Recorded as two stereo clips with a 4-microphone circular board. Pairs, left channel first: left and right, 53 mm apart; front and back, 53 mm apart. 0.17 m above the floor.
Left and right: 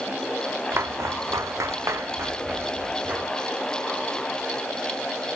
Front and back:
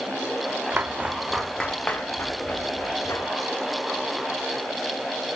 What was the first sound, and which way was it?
Footsteps, 125° right.